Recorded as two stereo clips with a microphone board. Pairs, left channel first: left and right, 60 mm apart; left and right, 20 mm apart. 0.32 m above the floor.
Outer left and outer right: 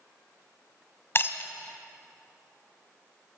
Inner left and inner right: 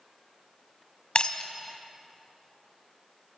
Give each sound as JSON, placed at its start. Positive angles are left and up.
{"t": 1.1, "sound": "breaking glass", "side_deg": 45, "distance_m": 1.2}